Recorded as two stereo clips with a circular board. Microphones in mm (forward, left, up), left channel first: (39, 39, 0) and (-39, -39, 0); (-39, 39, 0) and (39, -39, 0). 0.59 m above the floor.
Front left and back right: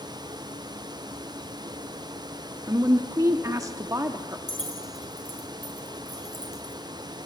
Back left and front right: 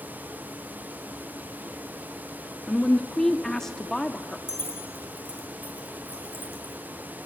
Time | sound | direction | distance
2.7 | a woman speaking | 145° right | 0.7 m
4.5 | keys jangling | 70° left | 3.5 m